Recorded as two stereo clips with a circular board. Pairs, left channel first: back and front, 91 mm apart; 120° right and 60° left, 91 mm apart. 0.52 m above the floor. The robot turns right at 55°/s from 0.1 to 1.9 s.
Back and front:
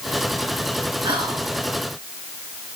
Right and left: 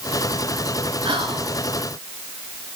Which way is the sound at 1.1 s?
25° left.